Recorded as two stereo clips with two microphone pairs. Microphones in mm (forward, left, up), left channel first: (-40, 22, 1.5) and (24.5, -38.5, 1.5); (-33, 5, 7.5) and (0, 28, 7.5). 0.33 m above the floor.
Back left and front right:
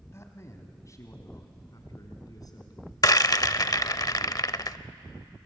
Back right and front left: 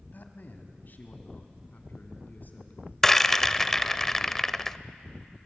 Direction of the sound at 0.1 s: 170° right.